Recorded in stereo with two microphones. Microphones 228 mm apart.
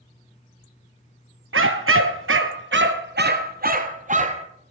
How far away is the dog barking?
About 1.1 m.